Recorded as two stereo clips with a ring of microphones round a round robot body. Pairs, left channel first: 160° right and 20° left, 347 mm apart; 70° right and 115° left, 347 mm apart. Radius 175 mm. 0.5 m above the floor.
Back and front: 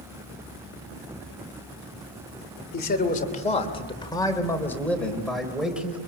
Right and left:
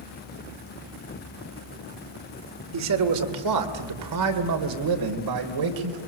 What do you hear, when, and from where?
2.7 s a man speaking: 145° left, 2.5 m; by 6.0 s 110° left, 3 m